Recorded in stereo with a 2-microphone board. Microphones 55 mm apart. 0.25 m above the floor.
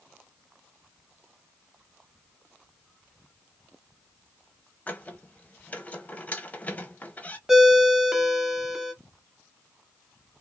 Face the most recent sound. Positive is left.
turn(degrees=-10)  # may be behind; listen again after turning